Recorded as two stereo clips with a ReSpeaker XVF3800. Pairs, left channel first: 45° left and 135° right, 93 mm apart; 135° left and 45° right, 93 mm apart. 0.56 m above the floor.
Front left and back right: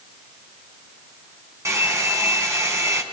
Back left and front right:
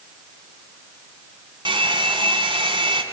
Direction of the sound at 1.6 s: 75° right.